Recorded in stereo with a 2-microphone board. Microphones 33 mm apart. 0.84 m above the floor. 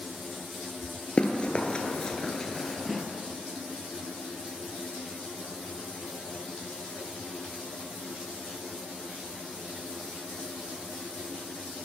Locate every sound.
1.2 s running footsteps: 30° left (ahead or behind), 1.0 m; by 3.0 s 5° left (ahead or behind), 1.2 m